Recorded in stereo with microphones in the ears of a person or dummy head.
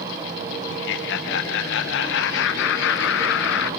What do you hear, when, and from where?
0.7 s laughter: 70° left (ahead or behind), 1.1 m